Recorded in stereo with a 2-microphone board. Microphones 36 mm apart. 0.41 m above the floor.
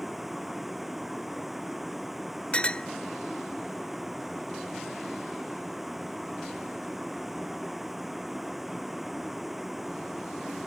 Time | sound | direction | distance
0.0 | a vehicle | 5° right (ahead or behind) | ?
2.5 | a clink | 35° left (ahead or behind) | ?